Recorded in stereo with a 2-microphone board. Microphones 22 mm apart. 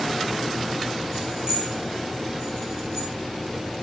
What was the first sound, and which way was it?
Keys jangling, 35° right (ahead or behind).